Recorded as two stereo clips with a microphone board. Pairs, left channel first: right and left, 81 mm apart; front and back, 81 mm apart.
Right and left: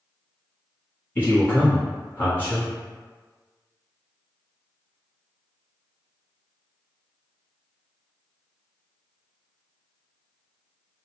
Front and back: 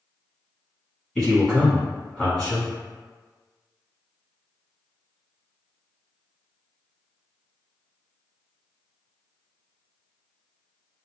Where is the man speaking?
70° right, 1.4 m.